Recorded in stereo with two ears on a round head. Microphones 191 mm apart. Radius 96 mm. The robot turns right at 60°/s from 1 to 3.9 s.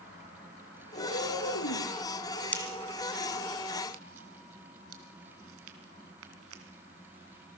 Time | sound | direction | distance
0.9 | a cat meowing | 30° left | 6 m
2.5 | a pop | 10° left (ahead or behind) | 2.5 m